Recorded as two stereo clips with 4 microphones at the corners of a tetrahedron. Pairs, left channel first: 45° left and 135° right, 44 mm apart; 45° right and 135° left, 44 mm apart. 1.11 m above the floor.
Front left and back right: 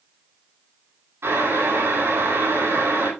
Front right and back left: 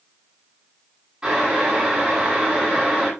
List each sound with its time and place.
1.2 s boiling: 150° right, 10 m